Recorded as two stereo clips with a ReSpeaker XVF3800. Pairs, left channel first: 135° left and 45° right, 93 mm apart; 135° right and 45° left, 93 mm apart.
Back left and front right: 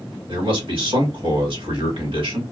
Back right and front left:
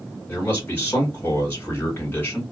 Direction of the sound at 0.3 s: 65° right.